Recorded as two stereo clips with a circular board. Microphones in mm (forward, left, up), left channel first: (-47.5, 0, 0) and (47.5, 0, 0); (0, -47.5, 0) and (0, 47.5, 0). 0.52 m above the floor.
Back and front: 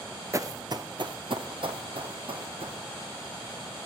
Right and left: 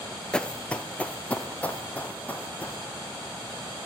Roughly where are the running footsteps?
Ahead.